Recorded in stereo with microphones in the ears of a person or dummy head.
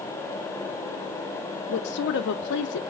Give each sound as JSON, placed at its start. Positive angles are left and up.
{"t": 1.7, "sound": "a woman speaking", "side_deg": 60, "distance_m": 0.5}